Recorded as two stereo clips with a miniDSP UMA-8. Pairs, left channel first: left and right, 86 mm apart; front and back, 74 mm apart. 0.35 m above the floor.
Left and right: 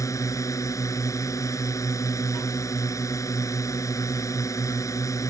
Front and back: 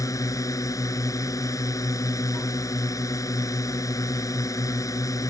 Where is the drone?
40° left.